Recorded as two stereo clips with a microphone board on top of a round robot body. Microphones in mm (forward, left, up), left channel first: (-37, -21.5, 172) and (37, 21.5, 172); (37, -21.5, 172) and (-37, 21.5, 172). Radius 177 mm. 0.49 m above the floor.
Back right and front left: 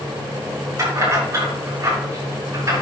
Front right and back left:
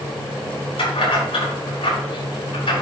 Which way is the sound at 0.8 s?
25° right.